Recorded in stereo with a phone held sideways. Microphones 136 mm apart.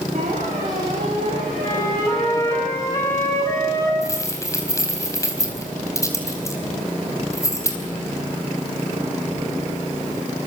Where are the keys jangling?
25° left (ahead or behind), 4 m.